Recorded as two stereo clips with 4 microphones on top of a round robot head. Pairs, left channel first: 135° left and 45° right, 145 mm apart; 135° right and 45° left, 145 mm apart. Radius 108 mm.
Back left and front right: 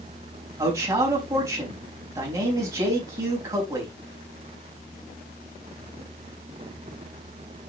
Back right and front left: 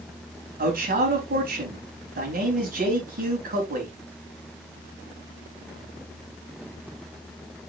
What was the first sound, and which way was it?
A man speaking, 25° left.